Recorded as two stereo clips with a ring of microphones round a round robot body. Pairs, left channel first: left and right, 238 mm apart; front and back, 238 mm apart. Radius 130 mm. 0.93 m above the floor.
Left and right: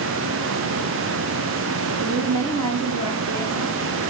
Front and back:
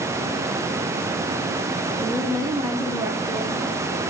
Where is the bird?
No bird in this recording.